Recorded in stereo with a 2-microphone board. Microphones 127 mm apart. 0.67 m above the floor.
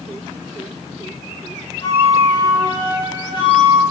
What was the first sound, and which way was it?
A flute, 40° left (ahead or behind).